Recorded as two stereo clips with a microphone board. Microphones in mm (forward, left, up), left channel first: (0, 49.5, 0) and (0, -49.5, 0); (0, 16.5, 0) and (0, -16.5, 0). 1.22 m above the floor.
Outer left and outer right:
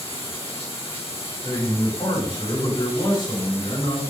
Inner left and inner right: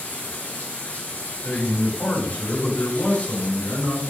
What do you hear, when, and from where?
0.0 s running water: 75° left (ahead or behind), 4 m
1.4 s a man speaking: 60° left (ahead or behind), 5 m